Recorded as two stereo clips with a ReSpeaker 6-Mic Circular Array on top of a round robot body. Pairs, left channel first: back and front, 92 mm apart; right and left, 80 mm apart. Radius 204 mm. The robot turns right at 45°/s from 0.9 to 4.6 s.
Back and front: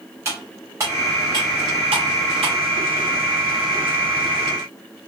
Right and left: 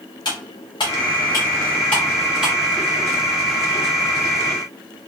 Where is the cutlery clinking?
60° right, 0.6 m; by 2.5 s 15° left, 0.6 m.